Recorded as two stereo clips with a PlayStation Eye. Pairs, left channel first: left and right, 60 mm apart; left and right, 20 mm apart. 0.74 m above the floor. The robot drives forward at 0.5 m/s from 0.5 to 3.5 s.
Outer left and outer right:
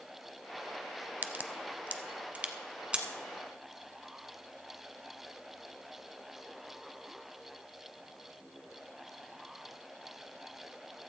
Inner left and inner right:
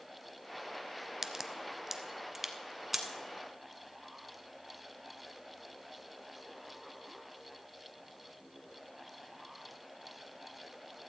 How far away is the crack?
About 0.6 m.